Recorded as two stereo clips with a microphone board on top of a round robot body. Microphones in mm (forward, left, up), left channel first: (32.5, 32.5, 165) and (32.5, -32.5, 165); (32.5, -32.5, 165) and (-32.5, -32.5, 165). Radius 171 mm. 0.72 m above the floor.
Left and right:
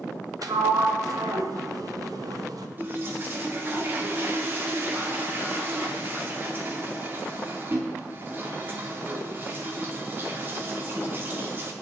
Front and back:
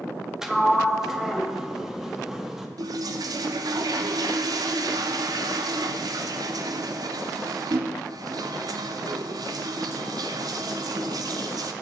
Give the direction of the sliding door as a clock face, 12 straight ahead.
3 o'clock.